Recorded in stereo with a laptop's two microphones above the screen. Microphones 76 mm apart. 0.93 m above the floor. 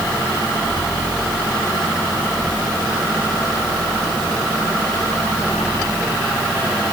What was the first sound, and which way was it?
Only background noise.